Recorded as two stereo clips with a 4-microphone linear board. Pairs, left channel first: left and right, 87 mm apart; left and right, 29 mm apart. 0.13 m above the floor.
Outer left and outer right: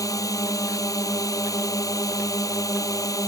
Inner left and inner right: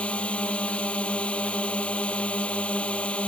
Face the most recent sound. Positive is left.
turn(degrees=40)  # may be behind; listen again after turning